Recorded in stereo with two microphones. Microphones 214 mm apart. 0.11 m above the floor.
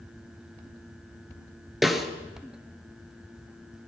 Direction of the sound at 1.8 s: Centre (ahead or behind).